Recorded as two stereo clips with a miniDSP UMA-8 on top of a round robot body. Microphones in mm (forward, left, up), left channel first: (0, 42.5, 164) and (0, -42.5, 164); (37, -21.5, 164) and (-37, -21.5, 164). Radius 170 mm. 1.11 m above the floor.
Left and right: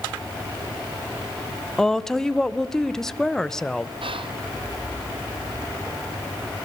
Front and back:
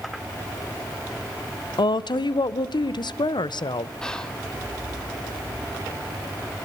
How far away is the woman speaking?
About 1.0 m.